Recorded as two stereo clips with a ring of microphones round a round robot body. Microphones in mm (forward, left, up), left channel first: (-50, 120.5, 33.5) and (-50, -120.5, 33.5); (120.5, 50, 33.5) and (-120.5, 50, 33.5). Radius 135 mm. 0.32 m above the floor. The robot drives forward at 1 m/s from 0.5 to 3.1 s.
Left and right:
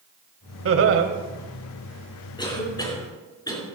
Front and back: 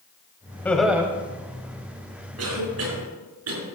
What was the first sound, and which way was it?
Laughter, 80° right.